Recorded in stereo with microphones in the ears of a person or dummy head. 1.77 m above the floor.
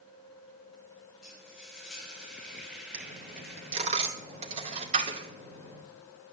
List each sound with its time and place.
1.2 s frying: 5° right (ahead or behind), 5.5 m
2.9 s a dropped coin: 35° right (ahead or behind), 2.5 m